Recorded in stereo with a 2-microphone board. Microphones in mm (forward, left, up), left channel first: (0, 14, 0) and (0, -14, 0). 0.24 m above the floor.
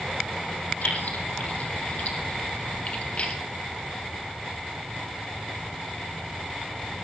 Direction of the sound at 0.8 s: 75° left (ahead or behind).